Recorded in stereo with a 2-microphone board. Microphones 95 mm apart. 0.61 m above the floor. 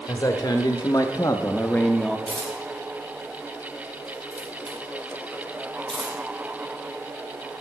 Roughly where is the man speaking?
Left.